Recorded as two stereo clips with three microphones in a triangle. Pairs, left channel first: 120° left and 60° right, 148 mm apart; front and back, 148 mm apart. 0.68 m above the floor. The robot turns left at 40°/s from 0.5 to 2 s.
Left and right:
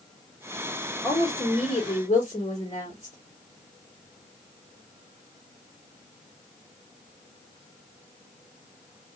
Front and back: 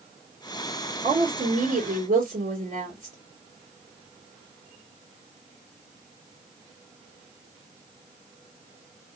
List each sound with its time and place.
1.0 s a woman speaking: 150° right, 2.5 m; by 3.2 s 170° left, 2.5 m